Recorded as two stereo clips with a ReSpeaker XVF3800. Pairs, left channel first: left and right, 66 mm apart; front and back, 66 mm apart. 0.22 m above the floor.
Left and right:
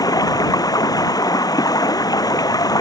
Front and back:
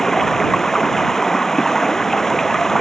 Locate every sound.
0.0 s running water: 85° left